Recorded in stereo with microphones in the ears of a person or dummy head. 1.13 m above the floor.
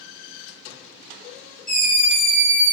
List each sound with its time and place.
1.7 s a scream: 45° left (ahead or behind), 1.7 m